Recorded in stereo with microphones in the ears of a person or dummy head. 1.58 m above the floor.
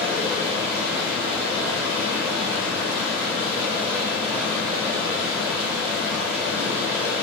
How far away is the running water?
About 3.5 m.